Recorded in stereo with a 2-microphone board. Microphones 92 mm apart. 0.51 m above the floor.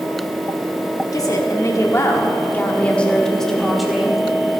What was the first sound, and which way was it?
A woman speaking, 40° left (ahead or behind).